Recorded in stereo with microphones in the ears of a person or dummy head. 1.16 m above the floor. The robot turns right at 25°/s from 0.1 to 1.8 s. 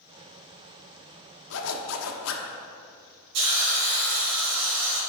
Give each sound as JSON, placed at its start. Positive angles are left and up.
{"t": 1.5, "sound": "a zipper", "side_deg": 70, "distance_m": 1.0}
{"t": 3.3, "sound": "a hiss", "side_deg": -70, "distance_m": 3.0}